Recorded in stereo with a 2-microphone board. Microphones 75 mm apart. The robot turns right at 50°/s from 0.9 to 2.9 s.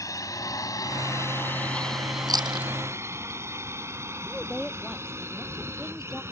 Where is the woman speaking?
5° left (ahead or behind).